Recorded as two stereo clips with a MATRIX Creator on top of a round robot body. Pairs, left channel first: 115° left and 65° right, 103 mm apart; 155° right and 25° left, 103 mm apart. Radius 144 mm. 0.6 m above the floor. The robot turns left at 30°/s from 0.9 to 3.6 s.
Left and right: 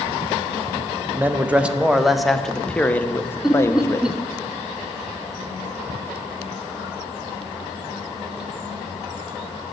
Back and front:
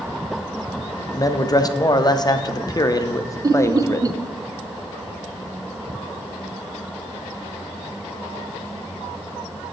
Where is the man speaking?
125° right, 0.7 m; by 4.1 s 160° left, 0.7 m.